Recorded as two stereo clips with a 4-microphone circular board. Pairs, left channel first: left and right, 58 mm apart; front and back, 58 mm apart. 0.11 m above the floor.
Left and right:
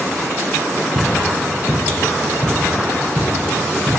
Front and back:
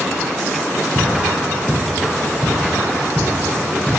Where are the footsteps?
80° right, 3.5 m; by 3.9 s 90° right, 5.5 m.